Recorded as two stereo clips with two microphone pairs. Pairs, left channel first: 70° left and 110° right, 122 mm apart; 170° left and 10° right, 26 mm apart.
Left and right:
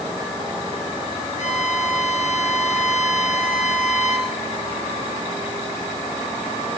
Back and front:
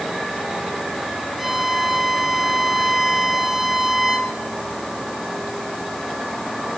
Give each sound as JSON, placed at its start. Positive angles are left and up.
{"t": 1.4, "sound": "a violin", "azimuth_deg": 75, "distance_m": 3.0}